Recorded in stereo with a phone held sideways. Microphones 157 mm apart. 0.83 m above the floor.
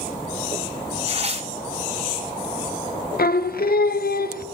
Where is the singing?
75° left (ahead or behind), 0.6 m.